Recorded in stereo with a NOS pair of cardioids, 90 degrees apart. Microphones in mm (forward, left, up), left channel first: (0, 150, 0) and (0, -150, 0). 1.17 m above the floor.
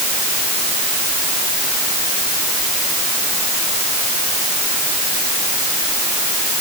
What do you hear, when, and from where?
Only background noise.